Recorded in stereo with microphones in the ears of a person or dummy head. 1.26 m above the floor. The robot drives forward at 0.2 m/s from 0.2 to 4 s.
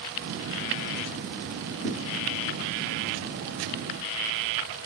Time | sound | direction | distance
1.8 | a thud | 15° left (ahead or behind) | 3.5 m